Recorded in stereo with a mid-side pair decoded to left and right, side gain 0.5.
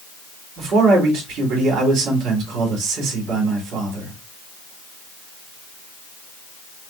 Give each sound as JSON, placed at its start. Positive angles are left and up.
{"t": 0.6, "sound": "a man speaking", "azimuth_deg": -70, "distance_m": 3.0}